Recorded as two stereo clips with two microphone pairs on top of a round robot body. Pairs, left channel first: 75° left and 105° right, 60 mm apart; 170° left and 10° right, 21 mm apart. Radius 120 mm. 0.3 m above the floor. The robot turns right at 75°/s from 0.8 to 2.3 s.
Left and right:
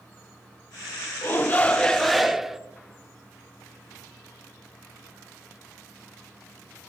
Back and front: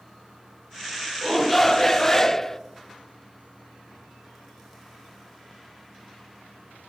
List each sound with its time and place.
1.2 s a shout: 110° left, 0.9 m; by 2.6 s 170° right, 0.9 m